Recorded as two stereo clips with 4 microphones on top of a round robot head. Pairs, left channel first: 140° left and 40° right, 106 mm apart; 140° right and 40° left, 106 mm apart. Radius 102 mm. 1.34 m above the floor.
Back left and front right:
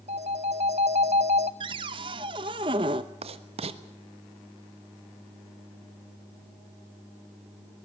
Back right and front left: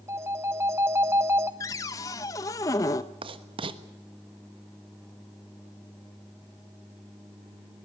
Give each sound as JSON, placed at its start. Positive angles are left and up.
{"t": 0.1, "sound": "a phone ringing", "azimuth_deg": -25, "distance_m": 0.5}
{"t": 1.6, "sound": "a cupboard door", "azimuth_deg": -85, "distance_m": 0.7}
{"t": 3.2, "sound": "writing", "azimuth_deg": -5, "distance_m": 1.3}